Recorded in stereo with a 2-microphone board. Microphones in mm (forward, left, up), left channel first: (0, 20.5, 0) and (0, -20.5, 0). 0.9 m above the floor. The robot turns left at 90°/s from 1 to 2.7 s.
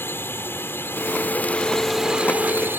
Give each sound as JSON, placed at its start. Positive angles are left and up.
{"t": 0.0, "sound": "a drone", "azimuth_deg": 85}